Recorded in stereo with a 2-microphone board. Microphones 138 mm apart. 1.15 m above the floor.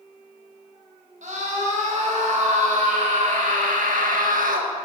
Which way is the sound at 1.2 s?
65° right (ahead or behind).